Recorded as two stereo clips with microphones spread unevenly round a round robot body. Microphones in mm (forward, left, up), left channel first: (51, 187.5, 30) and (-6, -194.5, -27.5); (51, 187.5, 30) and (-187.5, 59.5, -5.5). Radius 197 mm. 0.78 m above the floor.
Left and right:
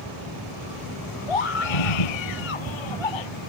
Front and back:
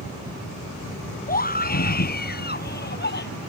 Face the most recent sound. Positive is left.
turn(degrees=75)